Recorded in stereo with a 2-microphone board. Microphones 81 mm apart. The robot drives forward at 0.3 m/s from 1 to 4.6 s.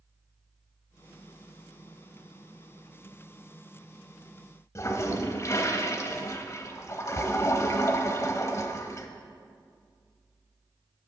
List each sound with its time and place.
4.8 s a toilet flushing: 35° left (ahead or behind), 0.6 m